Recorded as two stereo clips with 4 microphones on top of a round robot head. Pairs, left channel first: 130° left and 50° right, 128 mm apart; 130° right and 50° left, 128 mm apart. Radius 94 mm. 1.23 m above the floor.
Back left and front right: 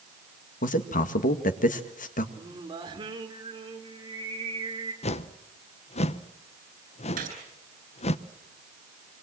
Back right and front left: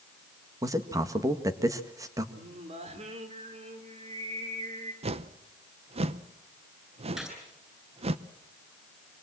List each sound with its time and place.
0.6 s a man speaking: 115° left, 2.0 m
2.4 s singing: 5° left, 3 m
5.0 s a whoosh: 90° left, 0.9 m
7.2 s a gunshot: 35° right, 8.5 m